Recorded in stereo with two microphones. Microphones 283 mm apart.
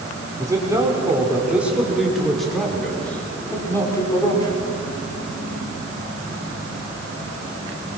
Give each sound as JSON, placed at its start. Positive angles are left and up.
{"t": 0.4, "sound": "a man speaking", "side_deg": -10, "distance_m": 5.0}